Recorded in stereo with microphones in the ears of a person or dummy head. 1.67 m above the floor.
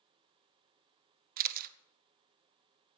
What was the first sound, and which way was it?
A camera shutter, 50° right (ahead or behind).